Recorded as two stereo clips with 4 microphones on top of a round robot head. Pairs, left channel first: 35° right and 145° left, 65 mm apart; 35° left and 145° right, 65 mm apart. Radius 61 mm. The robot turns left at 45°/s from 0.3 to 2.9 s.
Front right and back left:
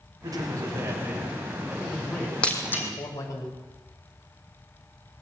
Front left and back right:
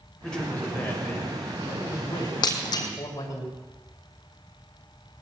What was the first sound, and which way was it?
A man speaking, 120° left.